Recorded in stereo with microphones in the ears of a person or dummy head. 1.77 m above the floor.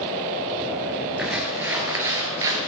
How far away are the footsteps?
About 2.5 m.